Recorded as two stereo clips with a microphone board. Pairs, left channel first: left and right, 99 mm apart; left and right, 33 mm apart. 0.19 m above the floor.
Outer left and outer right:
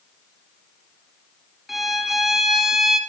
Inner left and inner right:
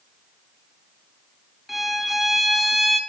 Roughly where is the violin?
Centre.